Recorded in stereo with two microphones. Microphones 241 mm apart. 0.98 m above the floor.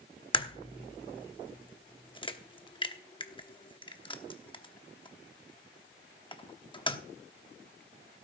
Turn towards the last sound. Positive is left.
turn(degrees=20)  # may be behind; listen again after turning